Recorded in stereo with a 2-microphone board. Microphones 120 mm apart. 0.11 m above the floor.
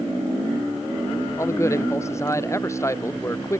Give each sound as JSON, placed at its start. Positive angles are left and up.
{"t": 1.4, "sound": "a man speaking", "side_deg": 25}